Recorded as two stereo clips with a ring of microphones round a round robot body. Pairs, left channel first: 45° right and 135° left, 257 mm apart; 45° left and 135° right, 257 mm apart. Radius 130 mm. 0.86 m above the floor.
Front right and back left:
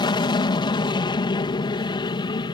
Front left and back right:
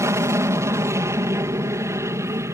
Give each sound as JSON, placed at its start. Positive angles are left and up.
{"t": 0.0, "sound": "an aircraft", "azimuth_deg": -75}